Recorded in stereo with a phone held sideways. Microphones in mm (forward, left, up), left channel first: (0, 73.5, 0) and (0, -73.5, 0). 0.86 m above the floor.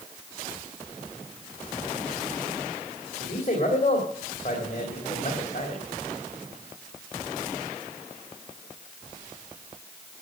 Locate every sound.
3.2 s a man speaking: 50° left (ahead or behind), 3 m